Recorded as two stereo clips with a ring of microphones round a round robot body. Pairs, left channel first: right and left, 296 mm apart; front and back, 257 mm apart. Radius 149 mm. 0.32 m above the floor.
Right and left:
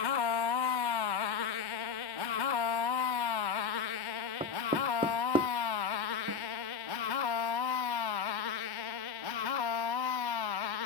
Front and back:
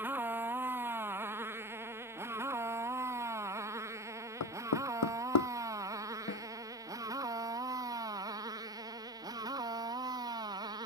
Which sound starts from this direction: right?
A motorcycle, at 0.0 s.